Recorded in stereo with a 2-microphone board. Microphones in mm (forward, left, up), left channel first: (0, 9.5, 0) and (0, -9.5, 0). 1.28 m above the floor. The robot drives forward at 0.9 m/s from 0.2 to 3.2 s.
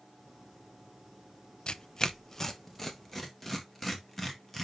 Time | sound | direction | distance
1.7 | tearing paper | 55° left (ahead or behind) | 0.5 m